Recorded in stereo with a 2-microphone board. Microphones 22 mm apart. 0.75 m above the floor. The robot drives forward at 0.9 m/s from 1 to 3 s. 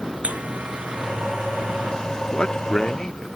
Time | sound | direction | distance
0.2 | a buzzer | 90° right | ?
2.3 | a man speaking | 50° left (ahead or behind) | ?